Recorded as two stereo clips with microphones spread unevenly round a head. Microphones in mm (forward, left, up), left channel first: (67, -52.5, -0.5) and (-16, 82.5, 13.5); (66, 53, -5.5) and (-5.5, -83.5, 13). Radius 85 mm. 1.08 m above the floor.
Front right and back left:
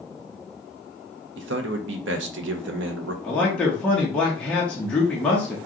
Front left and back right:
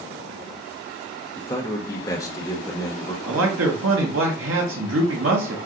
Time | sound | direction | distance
1.4 | a man speaking | 130° left | 0.8 m
3.2 | a man speaking | 140° right | 0.9 m